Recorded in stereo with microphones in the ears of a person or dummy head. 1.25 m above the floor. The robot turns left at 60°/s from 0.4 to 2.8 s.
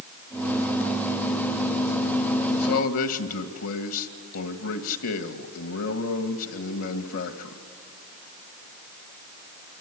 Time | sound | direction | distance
2.5 | a man speaking | 75° left (ahead or behind) | 1.7 m